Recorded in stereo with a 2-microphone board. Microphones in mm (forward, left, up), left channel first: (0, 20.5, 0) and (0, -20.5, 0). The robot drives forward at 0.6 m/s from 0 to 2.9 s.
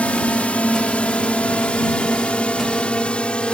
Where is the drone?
30° left (ahead or behind); by 3.6 s 25° left (ahead or behind).